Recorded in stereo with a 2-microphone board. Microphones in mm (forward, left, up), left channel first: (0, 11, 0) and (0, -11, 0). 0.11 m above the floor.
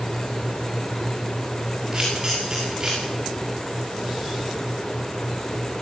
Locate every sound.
1.9 s a camera shutter: 20° right (ahead or behind), 10 m